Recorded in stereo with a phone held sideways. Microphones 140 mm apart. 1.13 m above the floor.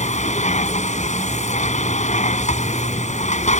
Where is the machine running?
60° left (ahead or behind).